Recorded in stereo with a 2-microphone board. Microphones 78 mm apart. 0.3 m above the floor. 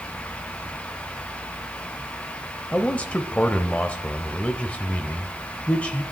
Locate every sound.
2.7 s a man speaking: 15° left (ahead or behind), 0.9 m